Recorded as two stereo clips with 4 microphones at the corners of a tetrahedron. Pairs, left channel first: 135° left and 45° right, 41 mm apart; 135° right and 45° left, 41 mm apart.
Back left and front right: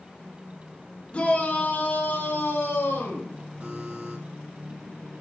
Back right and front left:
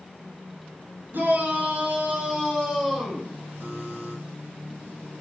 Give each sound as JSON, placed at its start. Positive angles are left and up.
{"t": 1.1, "sound": "a shout", "azimuth_deg": 75, "distance_m": 3.0}
{"t": 3.6, "sound": "a buzzer", "azimuth_deg": 5, "distance_m": 2.5}